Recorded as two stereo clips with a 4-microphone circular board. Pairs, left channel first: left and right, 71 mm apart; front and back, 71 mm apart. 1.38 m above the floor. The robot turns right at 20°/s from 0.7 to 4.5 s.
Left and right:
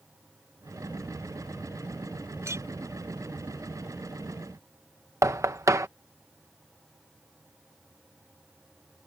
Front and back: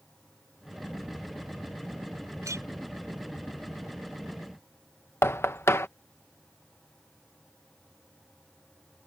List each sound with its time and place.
2.4 s a clink: 140° right; by 2.6 s 135° right
5.2 s knocking: 50° right